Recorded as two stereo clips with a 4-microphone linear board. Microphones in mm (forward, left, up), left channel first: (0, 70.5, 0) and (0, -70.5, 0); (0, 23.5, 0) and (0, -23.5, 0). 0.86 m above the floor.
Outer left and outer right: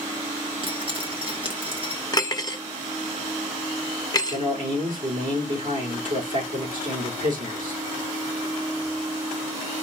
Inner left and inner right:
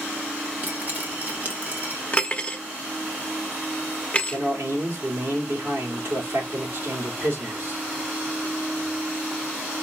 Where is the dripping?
35° right (ahead or behind), 1.2 m.